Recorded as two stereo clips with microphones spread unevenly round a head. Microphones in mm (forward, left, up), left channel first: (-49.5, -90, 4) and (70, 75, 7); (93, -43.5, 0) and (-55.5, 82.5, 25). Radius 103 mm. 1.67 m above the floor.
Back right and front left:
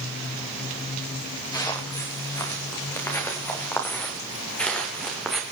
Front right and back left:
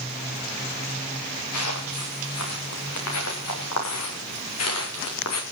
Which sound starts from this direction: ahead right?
Footsteps, at 1.5 s.